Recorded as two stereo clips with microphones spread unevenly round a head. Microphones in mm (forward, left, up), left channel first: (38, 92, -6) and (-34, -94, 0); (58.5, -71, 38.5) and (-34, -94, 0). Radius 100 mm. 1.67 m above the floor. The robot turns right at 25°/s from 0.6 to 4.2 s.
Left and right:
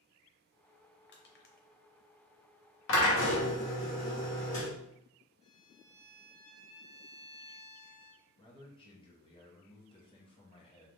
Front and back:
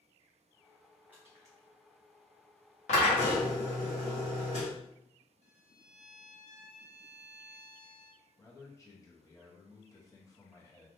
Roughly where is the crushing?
Left.